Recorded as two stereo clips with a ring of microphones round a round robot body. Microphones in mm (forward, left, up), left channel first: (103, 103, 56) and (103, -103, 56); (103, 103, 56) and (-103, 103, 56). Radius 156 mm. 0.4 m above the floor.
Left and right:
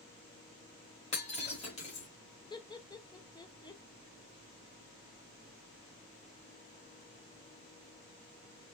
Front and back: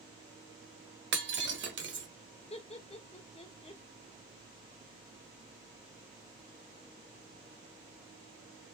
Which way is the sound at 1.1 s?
155° left.